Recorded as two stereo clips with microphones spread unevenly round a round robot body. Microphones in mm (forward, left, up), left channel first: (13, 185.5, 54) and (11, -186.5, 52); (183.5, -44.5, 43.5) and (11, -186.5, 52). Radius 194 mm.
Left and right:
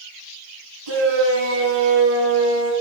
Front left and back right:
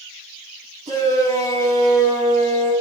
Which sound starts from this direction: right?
A shout, at 0.9 s.